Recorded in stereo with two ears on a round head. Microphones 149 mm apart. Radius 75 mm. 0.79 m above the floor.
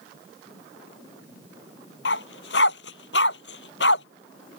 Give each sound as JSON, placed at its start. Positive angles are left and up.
{"t": 2.0, "sound": "a dog barking", "side_deg": 75}